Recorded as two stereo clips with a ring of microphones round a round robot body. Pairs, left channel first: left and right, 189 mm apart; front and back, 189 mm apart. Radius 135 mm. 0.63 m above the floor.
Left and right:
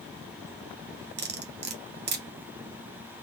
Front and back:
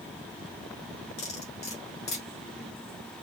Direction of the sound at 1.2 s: 55° right.